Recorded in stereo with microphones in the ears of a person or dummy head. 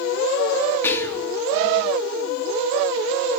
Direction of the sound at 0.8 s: 15° left (ahead or behind).